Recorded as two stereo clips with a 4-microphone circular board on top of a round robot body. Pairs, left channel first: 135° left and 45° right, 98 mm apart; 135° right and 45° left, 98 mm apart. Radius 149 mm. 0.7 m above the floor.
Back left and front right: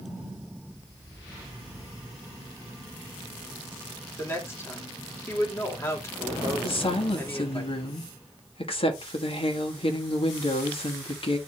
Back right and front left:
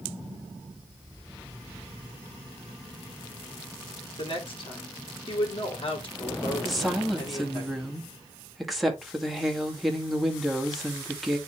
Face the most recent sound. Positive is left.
turn(degrees=135)